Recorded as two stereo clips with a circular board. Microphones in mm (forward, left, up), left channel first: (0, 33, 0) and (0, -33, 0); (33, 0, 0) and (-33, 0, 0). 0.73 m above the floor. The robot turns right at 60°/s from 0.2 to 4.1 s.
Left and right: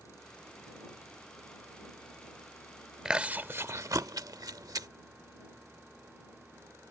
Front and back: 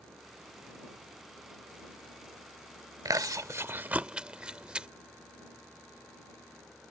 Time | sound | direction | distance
3.0 | chewing | 170° right | ?